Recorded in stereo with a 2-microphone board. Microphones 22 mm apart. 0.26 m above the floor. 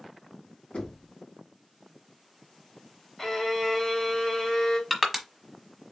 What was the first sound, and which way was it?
Knocking, 60° left (ahead or behind).